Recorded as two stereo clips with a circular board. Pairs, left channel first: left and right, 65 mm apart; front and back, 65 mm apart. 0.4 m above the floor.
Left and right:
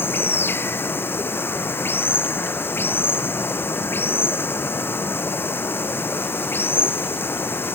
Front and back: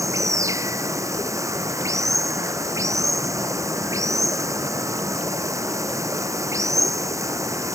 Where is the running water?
145° left.